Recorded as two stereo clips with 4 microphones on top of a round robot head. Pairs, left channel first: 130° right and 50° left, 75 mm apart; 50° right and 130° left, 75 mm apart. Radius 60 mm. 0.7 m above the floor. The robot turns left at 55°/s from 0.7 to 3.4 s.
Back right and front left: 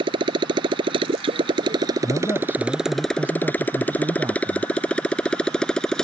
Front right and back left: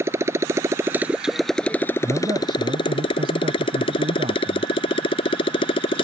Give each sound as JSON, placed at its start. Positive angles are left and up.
{"t": 0.0, "sound": "a motorcycle", "azimuth_deg": 70}
{"t": 2.0, "sound": "a man speaking", "azimuth_deg": -170}